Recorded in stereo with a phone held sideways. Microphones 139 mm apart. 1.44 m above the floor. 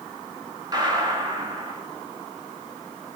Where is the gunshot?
30° right (ahead or behind), 2 m.